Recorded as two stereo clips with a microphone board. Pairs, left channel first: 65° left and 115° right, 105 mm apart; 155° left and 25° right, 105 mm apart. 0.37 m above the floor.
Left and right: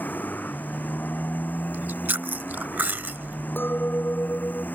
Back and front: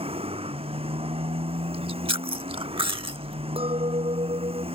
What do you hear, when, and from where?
0.0 s a motorcycle: 5° right
1.7 s chewing: 40° right
3.6 s a clink: 5° right